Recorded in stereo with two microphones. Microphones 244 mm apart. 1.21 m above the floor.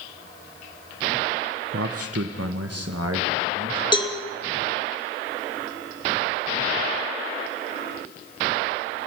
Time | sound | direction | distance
1.7 | a man speaking | 60° right (ahead or behind) | 0.8 m
3.9 | a cowbell | 20° left (ahead or behind) | 1.8 m